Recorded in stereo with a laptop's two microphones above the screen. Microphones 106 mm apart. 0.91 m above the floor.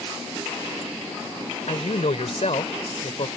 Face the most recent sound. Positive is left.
turn(degrees=70)  # may be behind; listen again after turning